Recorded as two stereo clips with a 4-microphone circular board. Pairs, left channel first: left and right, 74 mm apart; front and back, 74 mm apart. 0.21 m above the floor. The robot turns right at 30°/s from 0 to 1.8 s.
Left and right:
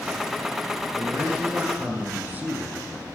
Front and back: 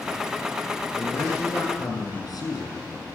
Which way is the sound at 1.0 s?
55° right.